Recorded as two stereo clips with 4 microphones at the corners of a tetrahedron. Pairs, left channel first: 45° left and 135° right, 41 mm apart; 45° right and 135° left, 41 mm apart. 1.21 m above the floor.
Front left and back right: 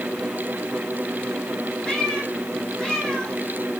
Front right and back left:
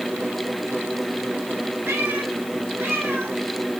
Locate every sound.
1.9 s a cat meowing: 120° left, 5.5 m